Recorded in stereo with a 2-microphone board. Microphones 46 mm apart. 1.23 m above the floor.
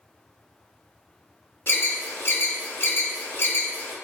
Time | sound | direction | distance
1.7 | an alarm | 55° left (ahead or behind) | 0.9 m